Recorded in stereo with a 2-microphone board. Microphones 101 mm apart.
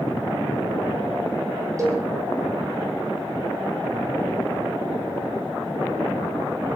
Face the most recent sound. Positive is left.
turn(degrees=-30)  # may be behind; listen again after turning